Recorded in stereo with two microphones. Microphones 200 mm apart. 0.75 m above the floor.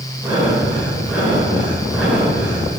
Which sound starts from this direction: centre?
Breathing, at 0.2 s.